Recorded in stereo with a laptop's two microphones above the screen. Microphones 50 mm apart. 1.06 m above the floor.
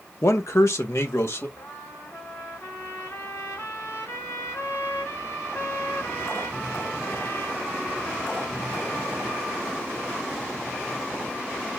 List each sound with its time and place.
0.2 s a man speaking: 65° left (ahead or behind), 0.9 m
1.6 s a trumpet: 75° left (ahead or behind), 2.0 m